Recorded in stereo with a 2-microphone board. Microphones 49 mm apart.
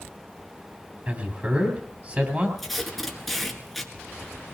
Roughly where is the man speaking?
Right.